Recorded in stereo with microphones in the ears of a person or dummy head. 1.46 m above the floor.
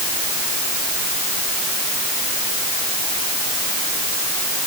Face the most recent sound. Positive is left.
No sound to turn to.